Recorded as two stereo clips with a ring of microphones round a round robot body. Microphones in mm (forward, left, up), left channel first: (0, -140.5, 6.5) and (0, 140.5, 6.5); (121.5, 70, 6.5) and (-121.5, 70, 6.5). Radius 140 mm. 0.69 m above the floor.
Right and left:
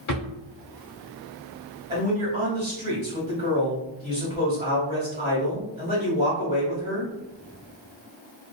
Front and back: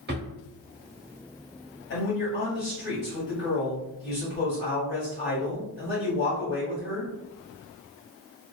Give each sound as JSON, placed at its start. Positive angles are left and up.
{"t": 0.1, "sound": "a drawer", "azimuth_deg": -125, "distance_m": 1.0}
{"t": 1.9, "sound": "a man speaking", "azimuth_deg": 25, "distance_m": 1.5}